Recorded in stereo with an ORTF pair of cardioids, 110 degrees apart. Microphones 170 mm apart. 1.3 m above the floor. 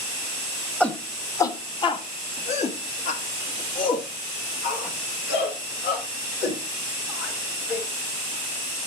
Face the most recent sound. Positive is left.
turn(degrees=70)